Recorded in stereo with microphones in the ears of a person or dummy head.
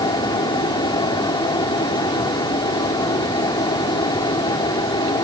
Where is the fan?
25° left (ahead or behind).